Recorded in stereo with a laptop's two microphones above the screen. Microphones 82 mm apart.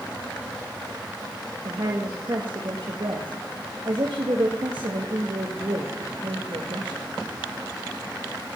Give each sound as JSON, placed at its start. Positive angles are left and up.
{"t": 1.6, "sound": "a woman speaking", "side_deg": -70, "distance_m": 1.3}